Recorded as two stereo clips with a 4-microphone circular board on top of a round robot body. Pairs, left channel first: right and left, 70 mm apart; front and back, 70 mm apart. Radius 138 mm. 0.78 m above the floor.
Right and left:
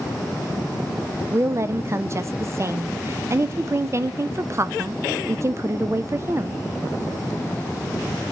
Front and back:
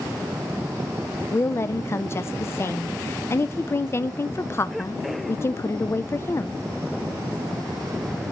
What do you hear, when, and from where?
1.3 s a woman speaking: 50° left, 0.6 m